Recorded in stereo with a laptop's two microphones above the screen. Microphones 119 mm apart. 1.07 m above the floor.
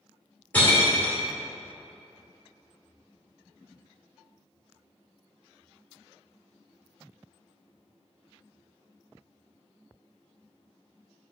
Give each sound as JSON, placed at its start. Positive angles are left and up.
{"t": 0.5, "sound": "breaking glass", "side_deg": 15, "distance_m": 1.6}